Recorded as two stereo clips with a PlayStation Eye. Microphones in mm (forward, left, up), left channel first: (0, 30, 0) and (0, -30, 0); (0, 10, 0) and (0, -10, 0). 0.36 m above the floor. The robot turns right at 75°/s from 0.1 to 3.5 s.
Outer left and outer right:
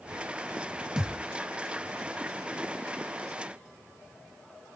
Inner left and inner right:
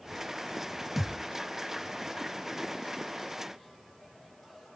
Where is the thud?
10° right (ahead or behind), 0.7 m; by 1.2 s 5° left (ahead or behind), 0.7 m.